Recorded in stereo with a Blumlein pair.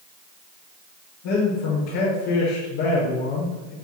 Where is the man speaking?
45° left, 6 m.